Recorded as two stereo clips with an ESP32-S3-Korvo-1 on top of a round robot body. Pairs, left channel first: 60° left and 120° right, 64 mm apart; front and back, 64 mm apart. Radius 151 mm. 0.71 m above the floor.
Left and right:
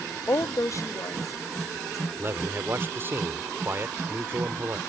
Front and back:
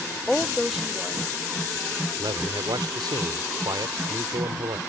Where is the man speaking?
175° right.